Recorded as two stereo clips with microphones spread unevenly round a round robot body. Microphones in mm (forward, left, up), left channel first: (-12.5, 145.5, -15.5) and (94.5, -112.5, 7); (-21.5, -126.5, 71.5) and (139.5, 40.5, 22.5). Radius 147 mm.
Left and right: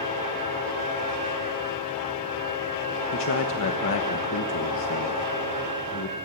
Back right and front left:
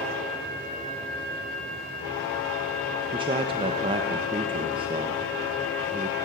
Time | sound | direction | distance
3.1 | a man speaking | 100° left | 1.1 m